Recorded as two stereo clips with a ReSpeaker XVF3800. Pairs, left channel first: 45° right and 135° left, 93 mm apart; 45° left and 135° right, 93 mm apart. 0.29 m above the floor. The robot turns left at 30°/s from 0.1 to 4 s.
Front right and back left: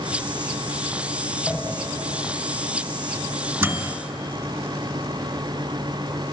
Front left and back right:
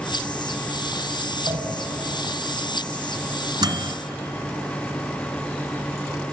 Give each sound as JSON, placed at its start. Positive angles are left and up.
{"t": 1.5, "sound": "a pop", "azimuth_deg": -115, "distance_m": 1.9}
{"t": 3.6, "sound": "a microwave", "azimuth_deg": -165, "distance_m": 1.7}